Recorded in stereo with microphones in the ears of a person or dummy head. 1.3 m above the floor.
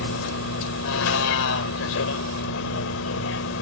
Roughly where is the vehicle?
Left.